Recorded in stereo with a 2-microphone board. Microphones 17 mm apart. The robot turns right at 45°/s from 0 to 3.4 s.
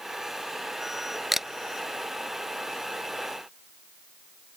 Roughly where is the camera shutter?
Centre.